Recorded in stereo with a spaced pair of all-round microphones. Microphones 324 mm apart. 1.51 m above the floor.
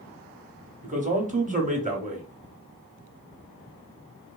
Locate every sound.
0.8 s a man speaking: 25° right (ahead or behind), 0.7 m